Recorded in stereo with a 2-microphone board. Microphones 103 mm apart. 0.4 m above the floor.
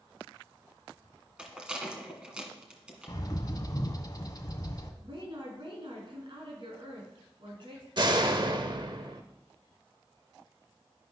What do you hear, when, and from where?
1.4 s a rattle: 10° right (ahead or behind), 2 m
3.1 s a bird: 40° left (ahead or behind), 1.1 m
5.0 s a woman speaking: 55° right (ahead or behind), 5 m
8.0 s a door slam: 45° right (ahead or behind), 1.0 m